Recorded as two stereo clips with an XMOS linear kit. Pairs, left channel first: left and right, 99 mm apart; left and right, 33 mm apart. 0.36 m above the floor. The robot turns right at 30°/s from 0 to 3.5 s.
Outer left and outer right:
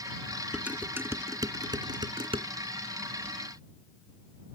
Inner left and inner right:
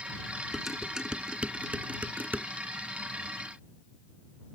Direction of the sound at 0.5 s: 10° right (ahead or behind).